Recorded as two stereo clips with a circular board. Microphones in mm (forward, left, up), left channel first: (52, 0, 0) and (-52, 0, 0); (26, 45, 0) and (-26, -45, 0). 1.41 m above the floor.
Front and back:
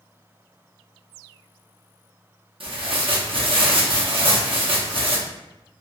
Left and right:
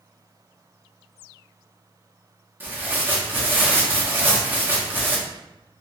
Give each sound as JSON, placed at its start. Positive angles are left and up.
{"t": 2.6, "sound": "tearing paper", "azimuth_deg": 170, "distance_m": 0.7}